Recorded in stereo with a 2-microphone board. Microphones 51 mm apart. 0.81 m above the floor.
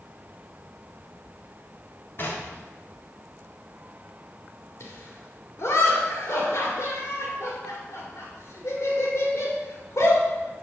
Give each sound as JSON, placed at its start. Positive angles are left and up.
{"t": 2.2, "sound": "knocking", "side_deg": 45, "distance_m": 1.5}
{"t": 4.8, "sound": "laughter", "side_deg": 60, "distance_m": 2.0}